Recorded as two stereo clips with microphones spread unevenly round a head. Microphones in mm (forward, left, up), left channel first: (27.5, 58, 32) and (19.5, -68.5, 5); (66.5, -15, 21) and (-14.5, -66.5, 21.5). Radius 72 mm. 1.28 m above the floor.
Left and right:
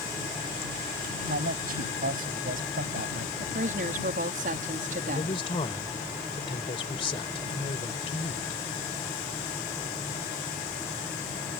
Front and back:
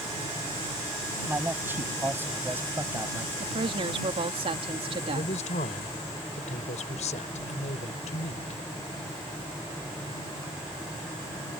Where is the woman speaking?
120° right.